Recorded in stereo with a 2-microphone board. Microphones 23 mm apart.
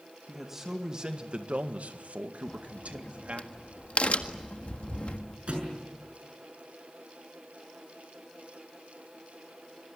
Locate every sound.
0.3 s a man speaking: 5° right (ahead or behind), 2.5 m; by 3.5 s 60° right (ahead or behind), 3 m
2.5 s a crack: 60° left (ahead or behind), 1.6 m
5.5 s a thud: 45° right (ahead or behind), 7 m